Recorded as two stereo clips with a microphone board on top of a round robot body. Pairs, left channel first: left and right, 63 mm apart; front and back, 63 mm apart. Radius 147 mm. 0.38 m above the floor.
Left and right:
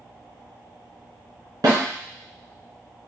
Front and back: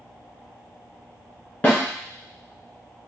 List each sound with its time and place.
1.6 s a snare drum: 65° right, 1.9 m